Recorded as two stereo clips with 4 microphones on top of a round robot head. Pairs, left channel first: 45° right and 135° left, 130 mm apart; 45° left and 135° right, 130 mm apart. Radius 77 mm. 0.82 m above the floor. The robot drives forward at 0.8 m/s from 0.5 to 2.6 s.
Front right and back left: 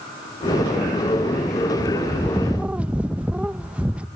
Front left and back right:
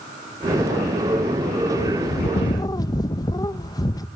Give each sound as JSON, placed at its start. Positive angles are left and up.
{"t": 1.8, "sound": "a bird", "azimuth_deg": 15, "distance_m": 0.9}